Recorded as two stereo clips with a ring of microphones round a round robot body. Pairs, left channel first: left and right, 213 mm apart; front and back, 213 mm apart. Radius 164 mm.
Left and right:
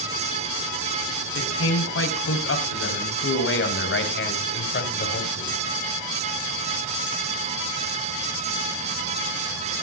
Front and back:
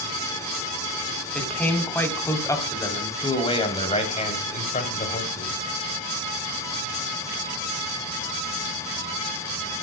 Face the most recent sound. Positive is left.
turn(degrees=45)